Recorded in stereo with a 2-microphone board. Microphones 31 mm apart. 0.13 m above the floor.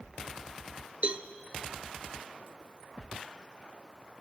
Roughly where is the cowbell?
Right.